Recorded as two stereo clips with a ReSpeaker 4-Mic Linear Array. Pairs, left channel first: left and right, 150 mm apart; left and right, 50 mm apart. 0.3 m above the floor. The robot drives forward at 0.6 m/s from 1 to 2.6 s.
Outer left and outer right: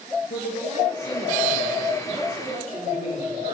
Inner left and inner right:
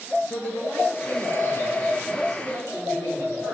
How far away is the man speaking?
About 4.5 m.